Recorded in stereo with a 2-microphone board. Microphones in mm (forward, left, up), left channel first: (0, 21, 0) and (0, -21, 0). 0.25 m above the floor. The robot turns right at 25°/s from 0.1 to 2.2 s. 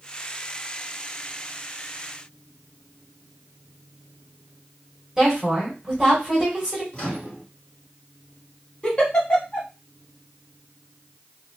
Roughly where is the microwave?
Left.